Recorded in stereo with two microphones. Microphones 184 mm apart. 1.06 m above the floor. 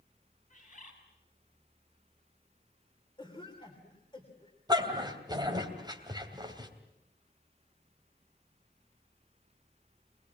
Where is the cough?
25° left (ahead or behind), 3 m.